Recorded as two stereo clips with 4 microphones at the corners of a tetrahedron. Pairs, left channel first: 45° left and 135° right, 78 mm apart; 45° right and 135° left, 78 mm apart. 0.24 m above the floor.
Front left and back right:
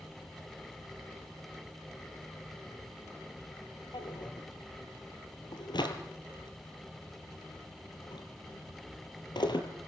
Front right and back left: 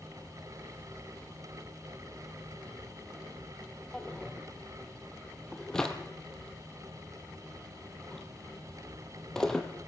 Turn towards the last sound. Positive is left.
turn(degrees=40)